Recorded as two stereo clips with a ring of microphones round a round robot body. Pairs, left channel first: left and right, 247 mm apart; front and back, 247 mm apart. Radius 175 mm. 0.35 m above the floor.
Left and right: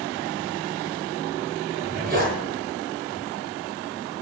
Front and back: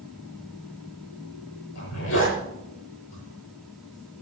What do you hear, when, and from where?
1.8 s a zipper: 35° right, 7.5 m